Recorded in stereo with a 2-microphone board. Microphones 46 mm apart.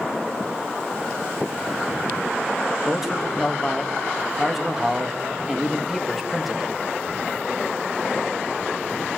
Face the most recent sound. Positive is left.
turn(degrees=-5)  # may be behind; listen again after turning